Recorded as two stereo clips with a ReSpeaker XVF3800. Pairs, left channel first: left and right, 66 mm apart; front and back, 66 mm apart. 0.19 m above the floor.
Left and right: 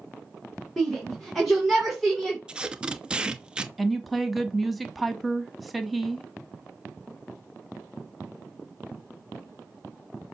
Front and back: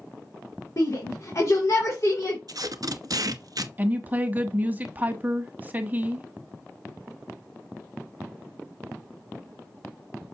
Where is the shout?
5° left, 2.5 m.